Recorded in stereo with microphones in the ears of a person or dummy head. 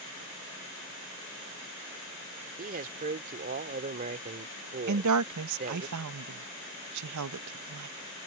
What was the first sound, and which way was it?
A man speaking, 40° right (ahead or behind).